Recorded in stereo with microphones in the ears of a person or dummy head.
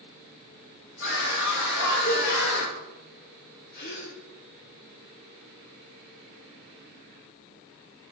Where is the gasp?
50° left (ahead or behind), 2.5 m.